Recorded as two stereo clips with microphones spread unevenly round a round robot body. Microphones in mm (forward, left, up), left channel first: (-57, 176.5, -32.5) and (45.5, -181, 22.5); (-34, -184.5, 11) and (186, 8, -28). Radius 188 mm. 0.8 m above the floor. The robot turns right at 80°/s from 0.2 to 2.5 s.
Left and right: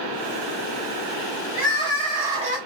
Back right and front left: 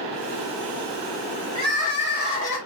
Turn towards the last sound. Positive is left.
turn(degrees=-145)